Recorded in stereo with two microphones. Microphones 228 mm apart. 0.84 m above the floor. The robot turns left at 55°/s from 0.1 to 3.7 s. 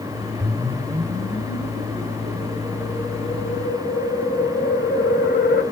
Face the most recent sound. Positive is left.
turn(degrees=140)